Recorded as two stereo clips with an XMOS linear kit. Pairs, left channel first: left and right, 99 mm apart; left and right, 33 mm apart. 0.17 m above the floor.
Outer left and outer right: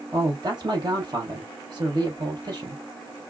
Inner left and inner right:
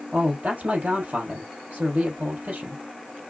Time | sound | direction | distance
0.1 | a man speaking | 45° right (ahead or behind) | 3.5 m